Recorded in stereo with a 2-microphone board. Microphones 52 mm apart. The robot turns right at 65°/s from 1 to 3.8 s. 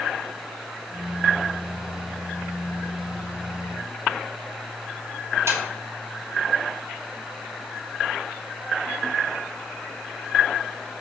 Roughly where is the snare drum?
Right.